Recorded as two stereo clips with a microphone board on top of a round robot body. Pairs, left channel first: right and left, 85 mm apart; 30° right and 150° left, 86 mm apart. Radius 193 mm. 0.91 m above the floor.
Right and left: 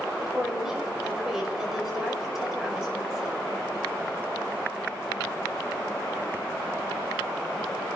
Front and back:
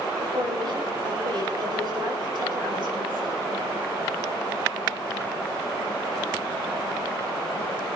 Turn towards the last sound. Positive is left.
turn(degrees=175)